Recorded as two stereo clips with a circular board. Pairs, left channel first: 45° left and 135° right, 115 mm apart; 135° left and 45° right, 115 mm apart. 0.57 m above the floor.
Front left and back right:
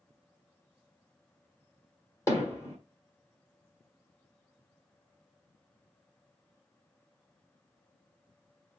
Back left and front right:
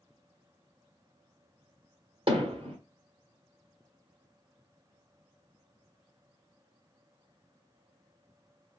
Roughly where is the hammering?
Ahead.